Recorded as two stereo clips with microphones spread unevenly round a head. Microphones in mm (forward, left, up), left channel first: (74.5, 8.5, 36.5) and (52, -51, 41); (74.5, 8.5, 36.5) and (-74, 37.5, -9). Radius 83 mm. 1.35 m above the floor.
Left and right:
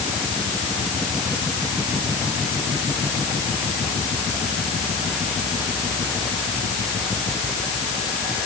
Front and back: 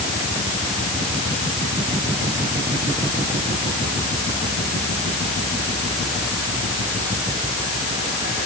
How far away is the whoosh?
No whoosh in this recording.